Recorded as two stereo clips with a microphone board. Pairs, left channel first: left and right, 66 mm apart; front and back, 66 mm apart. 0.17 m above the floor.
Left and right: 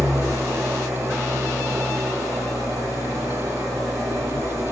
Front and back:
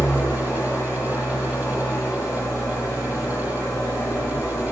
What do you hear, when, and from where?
0.0 s an engine running: 55° right, 3.5 m